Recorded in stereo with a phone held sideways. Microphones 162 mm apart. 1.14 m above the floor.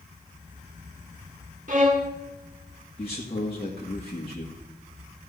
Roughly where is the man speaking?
Left.